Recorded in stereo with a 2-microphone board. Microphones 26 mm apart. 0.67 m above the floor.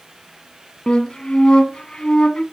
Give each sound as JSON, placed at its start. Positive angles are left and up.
{"t": 0.9, "sound": "a flute", "side_deg": 35, "distance_m": 0.9}